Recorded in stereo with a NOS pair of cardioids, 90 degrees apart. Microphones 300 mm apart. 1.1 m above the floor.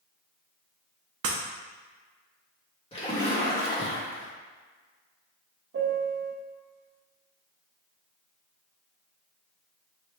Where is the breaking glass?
55° right, 0.7 m.